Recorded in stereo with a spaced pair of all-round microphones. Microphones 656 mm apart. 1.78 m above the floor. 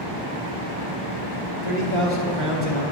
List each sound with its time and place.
1.6 s a man speaking: 35° left (ahead or behind), 1.1 m; by 2.8 s 10° left (ahead or behind), 1.4 m